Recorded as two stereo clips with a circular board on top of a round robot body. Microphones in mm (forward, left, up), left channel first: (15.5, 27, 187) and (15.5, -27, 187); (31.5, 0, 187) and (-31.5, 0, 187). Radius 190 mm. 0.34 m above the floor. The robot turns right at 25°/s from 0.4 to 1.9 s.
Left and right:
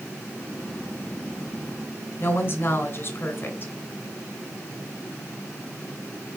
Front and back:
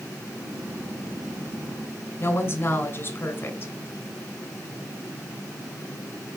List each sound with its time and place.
2.2 s a woman speaking: 45° left, 2.5 m